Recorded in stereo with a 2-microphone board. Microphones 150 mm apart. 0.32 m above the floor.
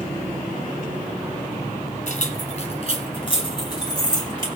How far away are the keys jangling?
About 2.0 m.